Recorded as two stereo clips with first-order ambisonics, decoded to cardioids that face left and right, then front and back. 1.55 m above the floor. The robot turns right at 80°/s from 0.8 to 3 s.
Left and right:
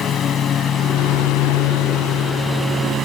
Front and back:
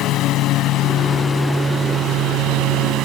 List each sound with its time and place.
0.0 s a lawn mower: 35° left; by 3.0 s 150° right